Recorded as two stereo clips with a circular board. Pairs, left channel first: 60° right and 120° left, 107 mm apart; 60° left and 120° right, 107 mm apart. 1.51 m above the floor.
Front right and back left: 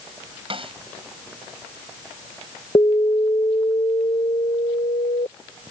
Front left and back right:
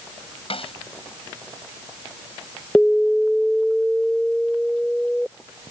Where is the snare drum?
85° left.